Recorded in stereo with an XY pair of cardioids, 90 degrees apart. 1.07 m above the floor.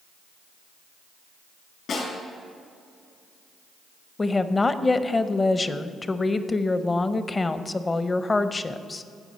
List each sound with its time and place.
1.9 s a snare drum: 65° left, 4 m
4.2 s a woman speaking: 30° left, 0.6 m